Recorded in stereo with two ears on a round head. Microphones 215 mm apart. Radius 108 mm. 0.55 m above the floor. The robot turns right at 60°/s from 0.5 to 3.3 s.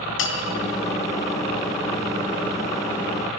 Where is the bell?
55° left (ahead or behind), 3 m.